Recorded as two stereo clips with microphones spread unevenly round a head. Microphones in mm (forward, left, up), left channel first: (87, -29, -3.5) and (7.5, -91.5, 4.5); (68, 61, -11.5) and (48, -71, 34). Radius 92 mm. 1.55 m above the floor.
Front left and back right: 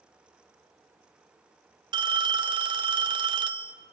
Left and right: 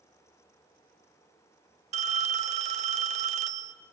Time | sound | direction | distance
1.9 | a phone ringing | 115° right | 0.9 m